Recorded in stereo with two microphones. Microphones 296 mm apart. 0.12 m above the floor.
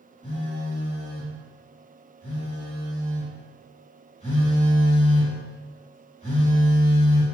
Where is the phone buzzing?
25° left (ahead or behind), 2.0 m.